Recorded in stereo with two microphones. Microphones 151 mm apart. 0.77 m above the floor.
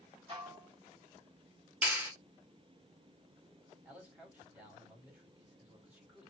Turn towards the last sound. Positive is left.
turn(degrees=-10)  # may be behind; listen again after turning